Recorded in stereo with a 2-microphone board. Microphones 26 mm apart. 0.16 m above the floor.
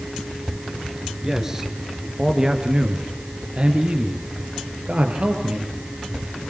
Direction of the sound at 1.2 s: 15° right (ahead or behind).